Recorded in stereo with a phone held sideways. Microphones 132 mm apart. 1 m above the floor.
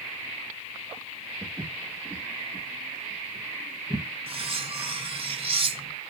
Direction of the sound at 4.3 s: 45° right (ahead or behind).